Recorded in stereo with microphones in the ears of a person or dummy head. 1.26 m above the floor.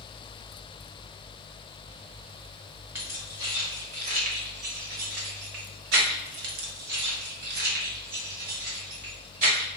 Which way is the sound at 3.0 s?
15° right (ahead or behind).